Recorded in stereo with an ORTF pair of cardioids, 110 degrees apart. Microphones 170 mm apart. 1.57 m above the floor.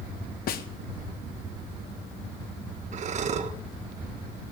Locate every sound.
0.5 s a snare drum: 65° left, 1.4 m
2.9 s breathing: 45° right, 1.3 m